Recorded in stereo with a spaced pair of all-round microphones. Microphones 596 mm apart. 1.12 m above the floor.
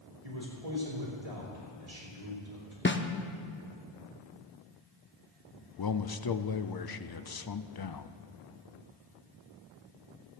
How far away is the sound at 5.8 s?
About 0.5 m.